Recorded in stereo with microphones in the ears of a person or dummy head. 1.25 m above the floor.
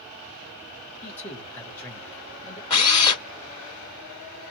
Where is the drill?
20° left (ahead or behind), 1.8 m.